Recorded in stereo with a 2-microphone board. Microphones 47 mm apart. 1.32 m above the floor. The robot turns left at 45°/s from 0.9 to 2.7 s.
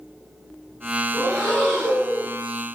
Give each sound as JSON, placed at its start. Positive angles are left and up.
{"t": 1.1, "sound": "breathing", "azimuth_deg": -160, "distance_m": 1.7}